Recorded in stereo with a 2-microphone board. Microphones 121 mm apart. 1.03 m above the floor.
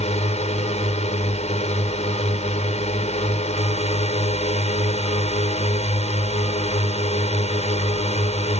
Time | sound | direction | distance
0.0 | a drone | 65° left (ahead or behind) | ?